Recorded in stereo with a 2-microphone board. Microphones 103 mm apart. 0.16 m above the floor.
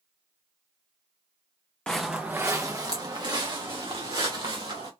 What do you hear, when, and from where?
1.9 s footsteps: 10° left (ahead or behind), 0.6 m; by 4.9 s 55° right (ahead or behind), 2.5 m